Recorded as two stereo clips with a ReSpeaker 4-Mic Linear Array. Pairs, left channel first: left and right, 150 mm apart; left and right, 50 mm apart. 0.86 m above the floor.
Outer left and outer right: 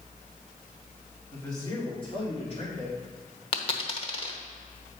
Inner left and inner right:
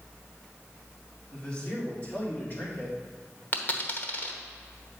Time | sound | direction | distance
1.3 | a man speaking | 20° left (ahead or behind) | 2.5 m
3.5 | a dropped coin | 40° left (ahead or behind) | 1.0 m